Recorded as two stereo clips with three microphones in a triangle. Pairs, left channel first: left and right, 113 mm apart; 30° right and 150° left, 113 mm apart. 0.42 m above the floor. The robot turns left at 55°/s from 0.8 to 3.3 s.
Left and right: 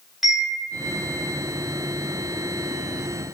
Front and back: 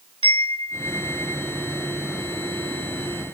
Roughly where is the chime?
Behind.